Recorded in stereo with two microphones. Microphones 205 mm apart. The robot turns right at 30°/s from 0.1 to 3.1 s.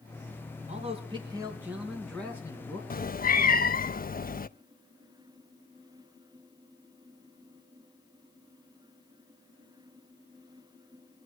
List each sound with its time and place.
0.7 s a man speaking: 40° right, 3 m; by 2.8 s 25° left, 3 m
2.9 s a cat meowing: 45° left (ahead or behind), 0.5 m